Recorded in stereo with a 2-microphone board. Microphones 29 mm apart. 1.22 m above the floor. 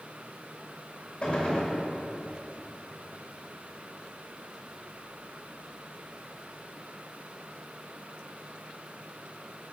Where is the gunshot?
40° left (ahead or behind), 1.7 m.